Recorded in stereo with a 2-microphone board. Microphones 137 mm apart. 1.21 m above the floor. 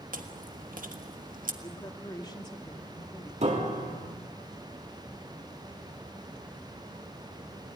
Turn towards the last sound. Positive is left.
turn(degrees=-55)  # may be behind; listen again after turning